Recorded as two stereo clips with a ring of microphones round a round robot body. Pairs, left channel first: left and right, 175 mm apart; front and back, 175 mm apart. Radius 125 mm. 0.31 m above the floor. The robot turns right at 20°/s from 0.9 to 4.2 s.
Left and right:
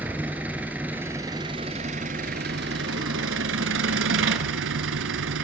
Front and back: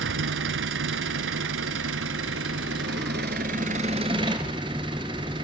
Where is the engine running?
175° right, 1.2 m; by 5.5 s 110° right, 1.2 m.